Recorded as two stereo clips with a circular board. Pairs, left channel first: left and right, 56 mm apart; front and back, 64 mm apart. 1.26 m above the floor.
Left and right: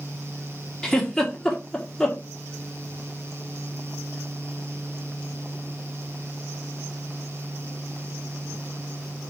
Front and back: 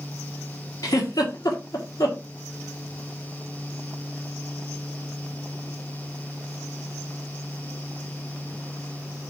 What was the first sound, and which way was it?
A giggle, 10° left.